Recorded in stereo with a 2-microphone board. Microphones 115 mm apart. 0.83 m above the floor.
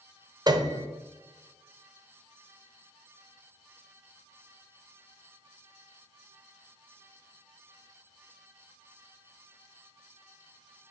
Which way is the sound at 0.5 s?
35° right (ahead or behind).